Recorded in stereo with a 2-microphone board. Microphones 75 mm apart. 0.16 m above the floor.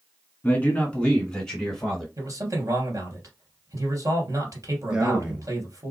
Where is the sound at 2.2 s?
45° right (ahead or behind), 3 m.